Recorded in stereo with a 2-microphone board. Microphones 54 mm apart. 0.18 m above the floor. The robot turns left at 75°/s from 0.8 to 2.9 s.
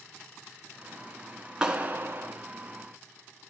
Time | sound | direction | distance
1.6 | a clap | 15° right | 1.4 m